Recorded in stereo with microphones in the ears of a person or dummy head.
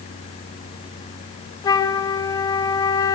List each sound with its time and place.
1.6 s a flute: 20° left (ahead or behind), 1.3 m